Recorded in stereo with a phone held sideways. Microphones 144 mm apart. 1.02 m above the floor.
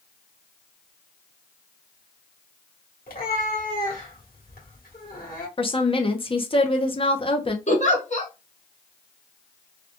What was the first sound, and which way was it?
A cat meowing, 80° left.